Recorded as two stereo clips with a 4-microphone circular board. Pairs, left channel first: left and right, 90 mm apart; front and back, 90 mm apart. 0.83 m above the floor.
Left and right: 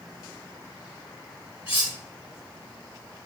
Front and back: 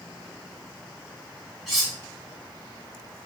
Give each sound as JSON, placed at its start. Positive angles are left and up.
{"t": 1.7, "sound": "cutlery clinking", "azimuth_deg": 95, "distance_m": 1.6}